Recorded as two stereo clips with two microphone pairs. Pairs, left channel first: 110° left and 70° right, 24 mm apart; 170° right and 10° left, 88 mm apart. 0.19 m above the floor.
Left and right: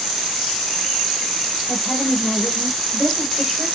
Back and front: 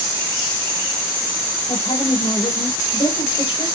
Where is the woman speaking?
165° right, 4.5 m.